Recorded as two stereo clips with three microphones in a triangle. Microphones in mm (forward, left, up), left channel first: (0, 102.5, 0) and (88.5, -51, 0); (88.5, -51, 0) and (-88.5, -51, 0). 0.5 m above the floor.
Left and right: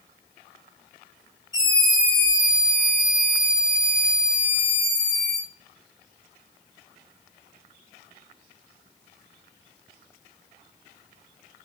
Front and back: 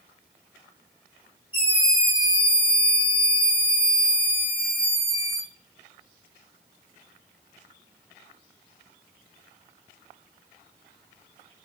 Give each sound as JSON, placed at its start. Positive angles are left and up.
{"t": 1.5, "sound": "a scream", "azimuth_deg": 55, "distance_m": 6.5}